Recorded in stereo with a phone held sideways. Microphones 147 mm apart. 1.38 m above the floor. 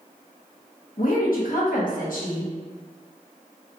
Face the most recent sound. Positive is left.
turn(degrees=70)  # may be behind; listen again after turning